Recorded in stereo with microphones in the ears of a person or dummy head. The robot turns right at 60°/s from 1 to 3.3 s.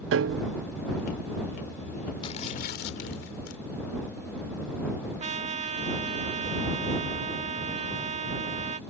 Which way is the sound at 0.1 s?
70° right (ahead or behind).